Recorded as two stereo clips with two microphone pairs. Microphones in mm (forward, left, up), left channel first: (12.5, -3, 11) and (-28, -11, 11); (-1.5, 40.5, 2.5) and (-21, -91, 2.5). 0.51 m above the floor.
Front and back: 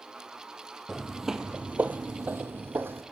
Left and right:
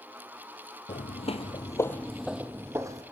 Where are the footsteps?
95° left, 1.2 m; by 3.0 s 160° right, 1.6 m.